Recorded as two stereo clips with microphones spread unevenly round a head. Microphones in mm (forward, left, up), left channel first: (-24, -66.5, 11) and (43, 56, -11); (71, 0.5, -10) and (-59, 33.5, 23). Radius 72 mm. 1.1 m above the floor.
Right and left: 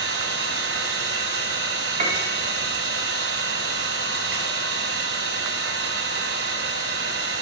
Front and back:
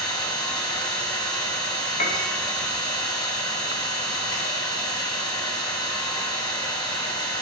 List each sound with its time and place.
0.0 s an engine running: 50° left, 4.5 m
2.0 s a piano: 20° left, 3 m